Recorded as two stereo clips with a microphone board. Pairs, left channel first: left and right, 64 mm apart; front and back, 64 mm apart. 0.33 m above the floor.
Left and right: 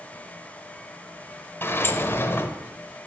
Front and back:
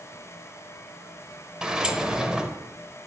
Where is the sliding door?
110° left, 0.5 m.